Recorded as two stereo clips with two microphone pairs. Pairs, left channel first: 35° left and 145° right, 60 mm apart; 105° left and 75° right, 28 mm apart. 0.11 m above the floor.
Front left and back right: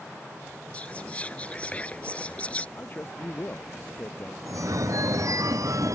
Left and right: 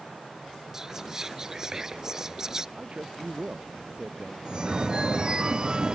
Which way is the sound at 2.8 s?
20° right.